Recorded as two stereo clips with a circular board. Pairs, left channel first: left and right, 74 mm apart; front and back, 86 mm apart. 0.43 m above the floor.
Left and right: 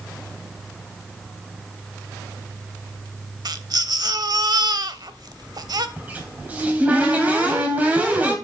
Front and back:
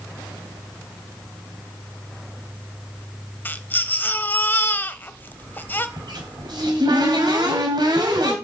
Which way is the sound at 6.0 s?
155° right.